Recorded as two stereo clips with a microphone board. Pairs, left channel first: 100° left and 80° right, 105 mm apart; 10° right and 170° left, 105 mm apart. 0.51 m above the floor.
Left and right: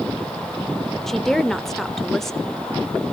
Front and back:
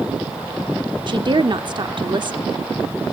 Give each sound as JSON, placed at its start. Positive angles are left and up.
{"t": 1.1, "sound": "a woman speaking", "azimuth_deg": -175, "distance_m": 1.2}